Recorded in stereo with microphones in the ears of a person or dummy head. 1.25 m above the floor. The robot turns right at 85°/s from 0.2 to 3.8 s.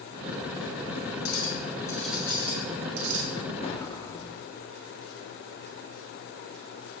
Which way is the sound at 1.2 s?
110° left.